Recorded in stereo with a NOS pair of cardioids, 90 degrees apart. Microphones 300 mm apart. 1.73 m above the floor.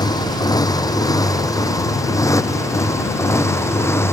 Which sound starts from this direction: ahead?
A motorcycle, at 0.0 s.